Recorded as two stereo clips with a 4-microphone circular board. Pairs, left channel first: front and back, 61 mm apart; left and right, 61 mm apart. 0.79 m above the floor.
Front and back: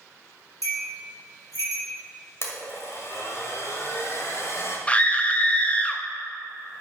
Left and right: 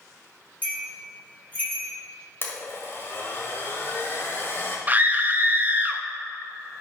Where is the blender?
40° left, 1.5 m.